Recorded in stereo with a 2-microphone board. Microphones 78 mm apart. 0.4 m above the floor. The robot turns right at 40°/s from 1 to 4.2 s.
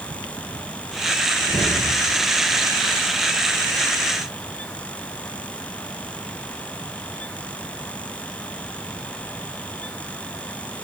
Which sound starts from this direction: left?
A whoosh, at 1.4 s.